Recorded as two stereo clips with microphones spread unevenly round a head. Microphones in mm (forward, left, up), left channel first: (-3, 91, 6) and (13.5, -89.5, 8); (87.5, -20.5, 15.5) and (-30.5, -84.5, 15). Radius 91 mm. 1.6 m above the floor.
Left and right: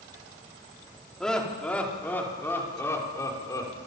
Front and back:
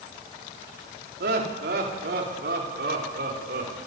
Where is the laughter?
Straight behind, 4.5 m; by 3.8 s 170° left, 6 m.